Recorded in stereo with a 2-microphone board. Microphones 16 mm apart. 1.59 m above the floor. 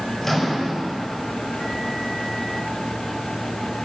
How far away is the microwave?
About 5.5 m.